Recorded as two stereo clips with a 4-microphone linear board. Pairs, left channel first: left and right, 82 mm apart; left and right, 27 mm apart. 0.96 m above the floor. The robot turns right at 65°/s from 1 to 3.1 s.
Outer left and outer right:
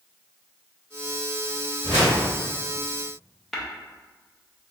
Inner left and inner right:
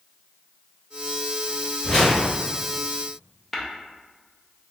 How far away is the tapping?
About 0.5 m.